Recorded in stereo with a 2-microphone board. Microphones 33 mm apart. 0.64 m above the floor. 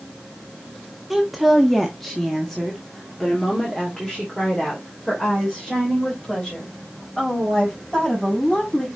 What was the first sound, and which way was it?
A woman speaking, 5° right (ahead or behind).